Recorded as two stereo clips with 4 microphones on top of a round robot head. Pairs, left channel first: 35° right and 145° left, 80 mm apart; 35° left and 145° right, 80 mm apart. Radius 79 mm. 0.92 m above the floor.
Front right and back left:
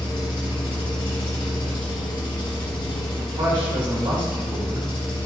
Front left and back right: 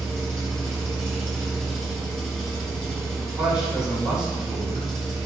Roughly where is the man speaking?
Behind left.